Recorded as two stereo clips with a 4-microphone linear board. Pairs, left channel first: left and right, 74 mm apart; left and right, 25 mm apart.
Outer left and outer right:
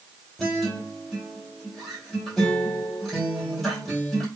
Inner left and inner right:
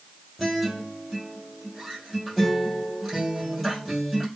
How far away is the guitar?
About 3 m.